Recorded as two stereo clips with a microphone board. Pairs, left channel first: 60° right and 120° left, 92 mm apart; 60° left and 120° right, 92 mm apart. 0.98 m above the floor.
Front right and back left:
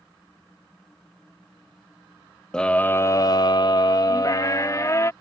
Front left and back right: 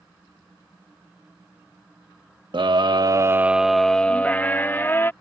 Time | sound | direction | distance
2.5 | a scream | 140° right | ?